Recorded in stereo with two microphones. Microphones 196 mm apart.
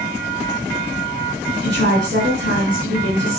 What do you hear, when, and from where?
1.6 s a woman speaking: 75° right (ahead or behind), 4.5 m